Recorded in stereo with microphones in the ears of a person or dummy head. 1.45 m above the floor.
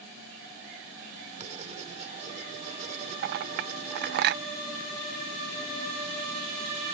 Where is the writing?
35° right (ahead or behind).